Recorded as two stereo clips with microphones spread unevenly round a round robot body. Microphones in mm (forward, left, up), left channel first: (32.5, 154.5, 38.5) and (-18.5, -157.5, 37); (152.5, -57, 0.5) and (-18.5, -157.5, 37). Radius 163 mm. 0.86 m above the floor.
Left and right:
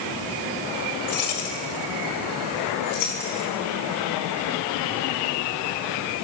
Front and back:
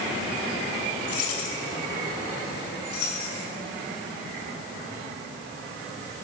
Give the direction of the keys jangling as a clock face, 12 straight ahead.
11 o'clock.